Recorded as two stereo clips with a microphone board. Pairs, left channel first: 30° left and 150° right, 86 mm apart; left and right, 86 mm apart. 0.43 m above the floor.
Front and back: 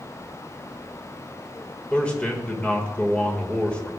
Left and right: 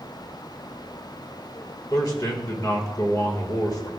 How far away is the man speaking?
About 1.6 m.